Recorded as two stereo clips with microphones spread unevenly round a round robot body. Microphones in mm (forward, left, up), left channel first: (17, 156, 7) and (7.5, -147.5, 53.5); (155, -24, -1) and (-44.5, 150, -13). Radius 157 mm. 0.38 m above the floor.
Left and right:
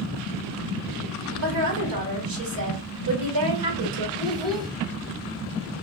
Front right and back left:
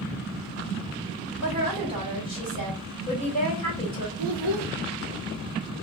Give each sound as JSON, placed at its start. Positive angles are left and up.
{"t": 1.4, "sound": "a woman speaking", "azimuth_deg": -115, "distance_m": 1.8}
{"t": 4.2, "sound": "a child speaking", "azimuth_deg": -170, "distance_m": 1.0}